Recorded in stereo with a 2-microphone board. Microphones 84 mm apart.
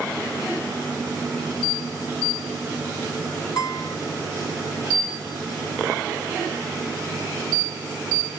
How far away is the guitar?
About 3 m.